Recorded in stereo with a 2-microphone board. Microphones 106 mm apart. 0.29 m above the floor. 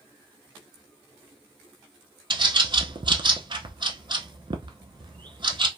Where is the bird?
50° right (ahead or behind), 0.5 m.